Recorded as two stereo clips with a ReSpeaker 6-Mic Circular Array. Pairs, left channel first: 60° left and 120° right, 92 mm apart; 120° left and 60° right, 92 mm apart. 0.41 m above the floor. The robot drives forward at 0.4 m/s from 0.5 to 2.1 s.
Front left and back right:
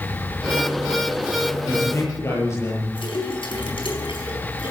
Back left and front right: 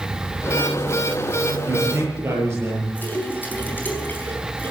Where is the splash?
55° left, 4.5 m.